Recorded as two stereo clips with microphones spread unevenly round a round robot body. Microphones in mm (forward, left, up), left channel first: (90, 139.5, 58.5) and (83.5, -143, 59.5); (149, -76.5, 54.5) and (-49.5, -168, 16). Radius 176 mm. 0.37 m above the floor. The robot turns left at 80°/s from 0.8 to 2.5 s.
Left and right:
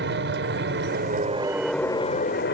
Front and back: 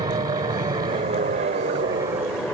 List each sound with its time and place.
0.0 s an aircraft: 110° right; by 2.5 s 115° left